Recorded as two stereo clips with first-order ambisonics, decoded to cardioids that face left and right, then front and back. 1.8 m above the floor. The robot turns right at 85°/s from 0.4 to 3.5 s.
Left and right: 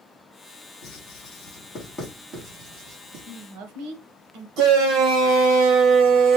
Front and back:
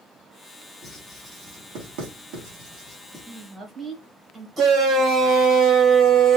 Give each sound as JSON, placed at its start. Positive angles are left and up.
{"t": 0.8, "sound": "writing", "azimuth_deg": 75, "distance_m": 3.0}
{"t": 3.2, "sound": "a woman speaking", "azimuth_deg": -115, "distance_m": 1.5}
{"t": 4.6, "sound": "a shout", "azimuth_deg": -105, "distance_m": 1.2}